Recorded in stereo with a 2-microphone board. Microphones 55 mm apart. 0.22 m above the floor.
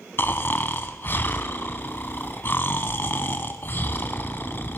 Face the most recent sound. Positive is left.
turn(degrees=45)  # may be behind; listen again after turning